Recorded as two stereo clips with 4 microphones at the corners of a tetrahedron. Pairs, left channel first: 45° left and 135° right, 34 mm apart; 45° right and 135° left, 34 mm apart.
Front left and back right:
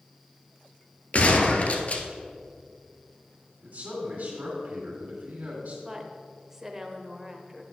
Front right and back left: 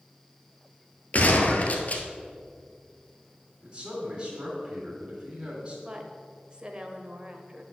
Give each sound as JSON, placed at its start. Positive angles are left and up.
{"t": 1.1, "sound": "a gunshot", "azimuth_deg": 0, "distance_m": 1.1}
{"t": 3.6, "sound": "a man speaking", "azimuth_deg": -160, "distance_m": 3.0}
{"t": 5.8, "sound": "a woman speaking", "azimuth_deg": 160, "distance_m": 1.0}